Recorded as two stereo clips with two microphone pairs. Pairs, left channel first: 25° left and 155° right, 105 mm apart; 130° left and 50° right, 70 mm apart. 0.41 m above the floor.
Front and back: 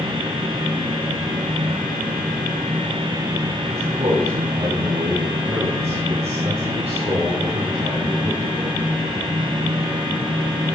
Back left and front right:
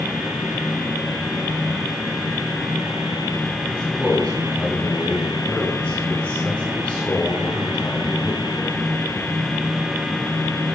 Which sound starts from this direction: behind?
A man speaking, at 3.7 s.